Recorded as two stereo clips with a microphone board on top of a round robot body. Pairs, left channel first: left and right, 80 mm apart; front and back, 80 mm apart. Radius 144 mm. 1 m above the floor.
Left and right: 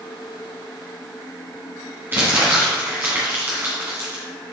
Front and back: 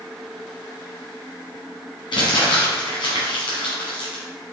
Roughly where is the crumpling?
Ahead right.